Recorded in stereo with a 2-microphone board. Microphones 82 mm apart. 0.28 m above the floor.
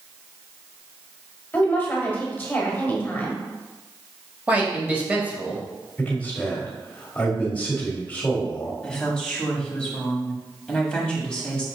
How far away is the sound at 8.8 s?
About 1.3 m.